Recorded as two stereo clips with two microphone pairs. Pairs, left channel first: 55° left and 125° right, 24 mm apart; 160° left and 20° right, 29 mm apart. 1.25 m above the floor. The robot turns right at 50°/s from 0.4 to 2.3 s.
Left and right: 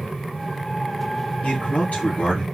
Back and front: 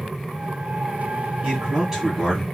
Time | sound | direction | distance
1.4 | a man speaking | 35° left | 1.2 m